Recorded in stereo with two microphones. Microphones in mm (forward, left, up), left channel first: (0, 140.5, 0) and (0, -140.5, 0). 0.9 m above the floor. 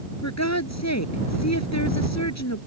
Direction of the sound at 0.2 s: 70° left (ahead or behind).